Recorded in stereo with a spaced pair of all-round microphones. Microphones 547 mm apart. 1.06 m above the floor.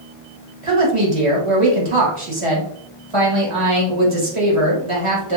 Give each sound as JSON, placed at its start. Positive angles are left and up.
{"t": 0.6, "sound": "a woman speaking", "side_deg": -65, "distance_m": 1.8}